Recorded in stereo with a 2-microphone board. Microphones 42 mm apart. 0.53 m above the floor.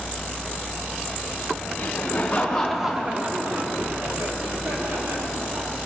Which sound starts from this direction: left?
Laughter, at 1.8 s.